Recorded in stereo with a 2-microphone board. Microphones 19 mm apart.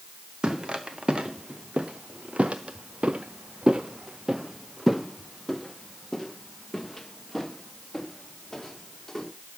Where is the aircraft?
I don't hear an aircraft.